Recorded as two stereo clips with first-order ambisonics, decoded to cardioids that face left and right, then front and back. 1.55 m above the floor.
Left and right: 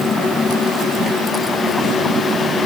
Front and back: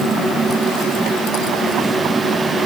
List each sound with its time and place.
Only background noise.